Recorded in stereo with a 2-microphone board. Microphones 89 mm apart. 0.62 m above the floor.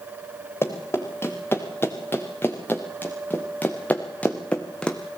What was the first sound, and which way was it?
Running footsteps, 30° left (ahead or behind).